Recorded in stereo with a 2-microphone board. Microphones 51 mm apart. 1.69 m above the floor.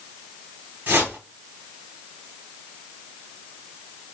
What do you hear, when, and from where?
0.9 s a whoosh: 45° right (ahead or behind), 1.1 m